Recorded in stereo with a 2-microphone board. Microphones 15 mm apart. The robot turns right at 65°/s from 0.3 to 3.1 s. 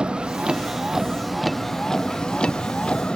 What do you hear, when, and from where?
0.0 s a vehicle: 75° right; by 3.1 s 105° left